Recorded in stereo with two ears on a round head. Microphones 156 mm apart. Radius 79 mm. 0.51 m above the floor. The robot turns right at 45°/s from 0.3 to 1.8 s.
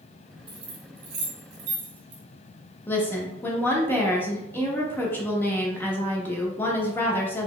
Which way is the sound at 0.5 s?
30° right (ahead or behind).